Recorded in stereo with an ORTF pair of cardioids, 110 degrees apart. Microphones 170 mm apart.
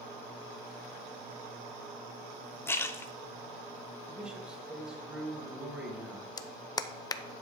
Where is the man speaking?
5° right, 2.5 m.